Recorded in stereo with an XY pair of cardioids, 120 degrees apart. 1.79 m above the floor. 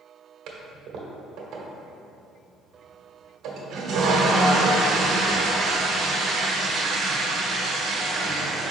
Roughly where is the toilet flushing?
Ahead right.